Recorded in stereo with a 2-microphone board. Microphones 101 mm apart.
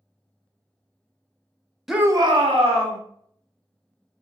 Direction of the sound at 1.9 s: Centre (ahead or behind).